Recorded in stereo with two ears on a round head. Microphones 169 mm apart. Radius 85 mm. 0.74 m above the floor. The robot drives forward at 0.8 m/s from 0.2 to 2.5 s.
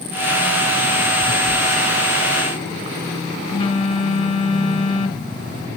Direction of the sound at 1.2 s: 20° left (ahead or behind).